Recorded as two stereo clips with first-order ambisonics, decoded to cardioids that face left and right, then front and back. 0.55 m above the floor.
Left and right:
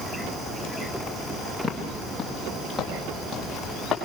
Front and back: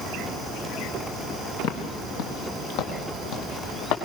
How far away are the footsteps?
About 3.5 m.